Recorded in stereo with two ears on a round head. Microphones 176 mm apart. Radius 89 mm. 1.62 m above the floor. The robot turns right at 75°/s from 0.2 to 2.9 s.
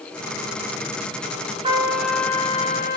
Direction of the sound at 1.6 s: 35° right.